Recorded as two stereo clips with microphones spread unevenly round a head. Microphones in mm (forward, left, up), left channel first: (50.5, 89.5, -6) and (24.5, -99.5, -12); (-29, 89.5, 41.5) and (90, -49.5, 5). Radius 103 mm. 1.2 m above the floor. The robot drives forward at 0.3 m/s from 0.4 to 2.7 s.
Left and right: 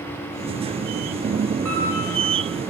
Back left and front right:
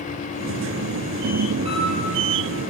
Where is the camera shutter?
110° right, 6 m; by 1.8 s 115° right, 6 m.